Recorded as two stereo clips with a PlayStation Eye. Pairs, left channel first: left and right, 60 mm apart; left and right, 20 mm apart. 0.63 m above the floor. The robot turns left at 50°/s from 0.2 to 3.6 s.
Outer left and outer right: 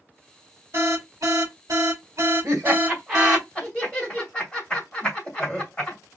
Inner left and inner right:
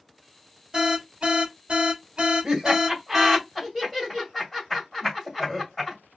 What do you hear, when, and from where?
0.7 s an alarm: 45° right, 3 m; by 3.4 s straight behind, 3 m
2.4 s laughter: 45° right (ahead or behind), 3 m; by 6.0 s 10° left (ahead or behind), 3 m